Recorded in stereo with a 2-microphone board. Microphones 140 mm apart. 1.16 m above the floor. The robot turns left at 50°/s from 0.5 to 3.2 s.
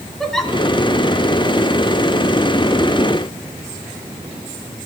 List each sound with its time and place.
0.2 s a giggle: 5° left (ahead or behind), 2 m